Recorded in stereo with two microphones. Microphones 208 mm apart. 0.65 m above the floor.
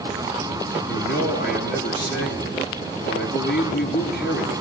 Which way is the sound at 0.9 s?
55° left (ahead or behind).